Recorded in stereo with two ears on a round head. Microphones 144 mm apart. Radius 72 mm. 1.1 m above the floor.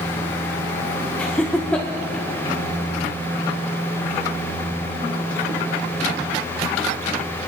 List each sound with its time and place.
1.2 s laughter: 5° left (ahead or behind), 0.8 m